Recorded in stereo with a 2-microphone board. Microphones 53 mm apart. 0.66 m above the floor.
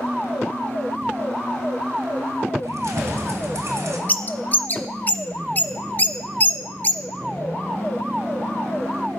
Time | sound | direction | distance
2.6 | keys jangling | 70° right (ahead or behind) | 2.5 m
4.1 | a bird | 35° left (ahead or behind) | 0.9 m